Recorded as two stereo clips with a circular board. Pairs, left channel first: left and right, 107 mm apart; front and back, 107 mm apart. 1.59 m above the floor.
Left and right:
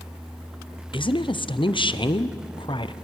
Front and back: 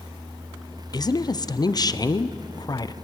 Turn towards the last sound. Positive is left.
turn(degrees=50)